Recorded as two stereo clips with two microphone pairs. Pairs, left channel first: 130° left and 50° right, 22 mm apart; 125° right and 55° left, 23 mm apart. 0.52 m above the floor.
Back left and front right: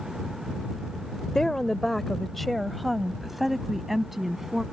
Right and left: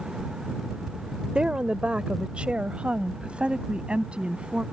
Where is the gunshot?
I don't hear a gunshot.